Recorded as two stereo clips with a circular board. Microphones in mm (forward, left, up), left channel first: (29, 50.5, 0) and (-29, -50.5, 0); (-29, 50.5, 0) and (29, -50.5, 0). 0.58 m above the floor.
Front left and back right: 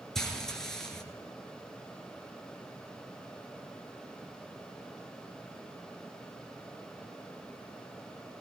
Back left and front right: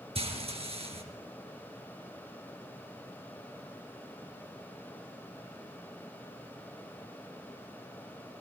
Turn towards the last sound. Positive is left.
turn(degrees=-25)